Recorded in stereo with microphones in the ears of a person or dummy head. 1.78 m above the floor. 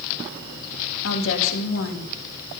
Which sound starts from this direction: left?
A woman speaking, at 1.0 s.